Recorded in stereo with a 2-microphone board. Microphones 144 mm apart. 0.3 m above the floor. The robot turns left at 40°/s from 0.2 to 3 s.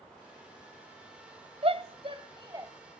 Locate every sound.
1.6 s a shout: 45° right (ahead or behind), 1.4 m; by 2.7 s 25° right (ahead or behind), 1.4 m